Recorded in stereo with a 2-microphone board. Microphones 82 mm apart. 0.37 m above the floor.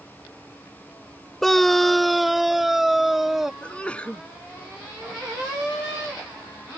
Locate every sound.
1.4 s a scream: 5° left (ahead or behind); by 3.5 s 5° right (ahead or behind)
3.6 s a sneeze: 15° left (ahead or behind)